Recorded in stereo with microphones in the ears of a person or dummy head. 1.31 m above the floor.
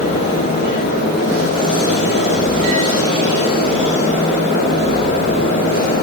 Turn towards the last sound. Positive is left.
No sound to turn to.